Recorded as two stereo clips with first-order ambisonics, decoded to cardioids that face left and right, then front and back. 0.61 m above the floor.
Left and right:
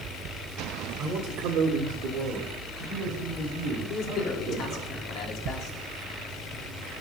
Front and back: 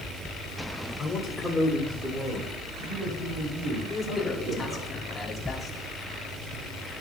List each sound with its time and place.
1.0 s a man speaking: 60° right, 1.6 m; by 4.9 s 135° right, 6 m
3.9 s a man speaking: 70° left, 1.5 m